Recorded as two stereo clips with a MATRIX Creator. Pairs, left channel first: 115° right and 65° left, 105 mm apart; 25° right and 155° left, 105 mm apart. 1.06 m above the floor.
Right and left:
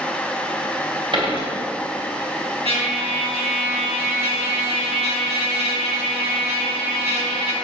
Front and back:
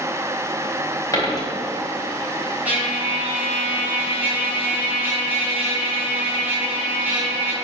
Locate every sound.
1.1 s a dropped coin: 35° left, 3 m
2.6 s a trumpet: 85° left, 3 m